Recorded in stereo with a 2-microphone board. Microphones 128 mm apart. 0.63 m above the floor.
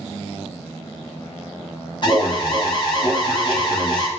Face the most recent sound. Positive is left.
turn(degrees=40)  # may be behind; listen again after turning